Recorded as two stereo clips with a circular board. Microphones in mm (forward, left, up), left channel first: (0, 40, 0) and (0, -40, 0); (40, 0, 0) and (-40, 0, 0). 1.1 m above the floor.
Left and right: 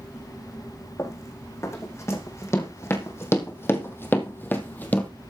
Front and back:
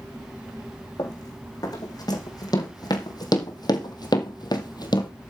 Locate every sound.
1.0 s running footsteps: 40° left, 4 m; by 5.1 s 20° left, 2 m